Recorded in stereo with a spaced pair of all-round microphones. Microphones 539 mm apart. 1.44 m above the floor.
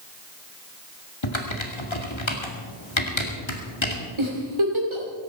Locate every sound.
1.2 s typing on a keyboard: 60° left (ahead or behind), 2.5 m
4.2 s a giggle: 60° right (ahead or behind), 3 m